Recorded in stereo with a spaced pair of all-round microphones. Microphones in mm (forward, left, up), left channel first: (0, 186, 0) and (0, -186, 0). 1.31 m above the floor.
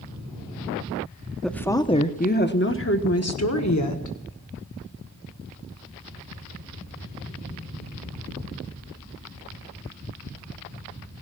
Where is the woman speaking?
Centre (ahead or behind), 1.0 m; by 4.2 s 55° left (ahead or behind), 1.8 m.